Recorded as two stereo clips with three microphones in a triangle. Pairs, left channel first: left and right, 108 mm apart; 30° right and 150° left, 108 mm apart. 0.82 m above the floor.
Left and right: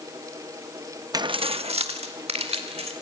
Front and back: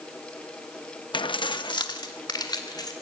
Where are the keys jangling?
50° right, 0.5 m; by 2.9 s 80° right, 3 m.